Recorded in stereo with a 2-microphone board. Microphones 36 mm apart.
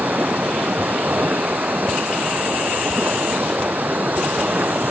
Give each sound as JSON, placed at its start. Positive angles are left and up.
{"t": 0.0, "sound": "running water", "side_deg": -50}